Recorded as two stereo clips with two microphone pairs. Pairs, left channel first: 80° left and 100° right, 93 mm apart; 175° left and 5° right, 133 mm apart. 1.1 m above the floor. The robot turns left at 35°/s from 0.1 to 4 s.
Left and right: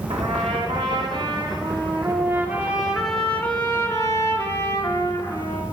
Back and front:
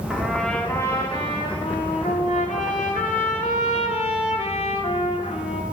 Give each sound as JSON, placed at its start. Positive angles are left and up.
{"t": 0.1, "sound": "a trumpet", "azimuth_deg": -90, "distance_m": 3.0}